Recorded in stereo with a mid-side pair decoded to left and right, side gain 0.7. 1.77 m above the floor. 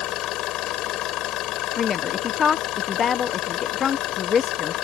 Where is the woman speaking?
35° left.